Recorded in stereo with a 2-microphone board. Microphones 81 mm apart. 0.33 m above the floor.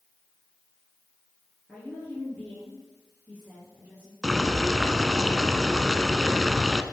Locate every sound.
1.7 s a woman speaking: centre (ahead or behind), 4.5 m; by 4.1 s 15° right (ahead or behind), 6 m
4.2 s boiling: 5° left (ahead or behind), 0.7 m